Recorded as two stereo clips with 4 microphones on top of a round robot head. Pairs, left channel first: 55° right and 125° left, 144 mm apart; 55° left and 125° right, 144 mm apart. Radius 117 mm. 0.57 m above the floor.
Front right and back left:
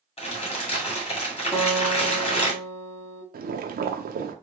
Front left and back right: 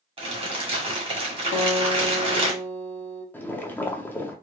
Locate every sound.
0.2 s crumpling: 85° right, 1.8 m
1.5 s a guitar: 40° left, 0.9 m
3.3 s boiling: 130° left, 0.6 m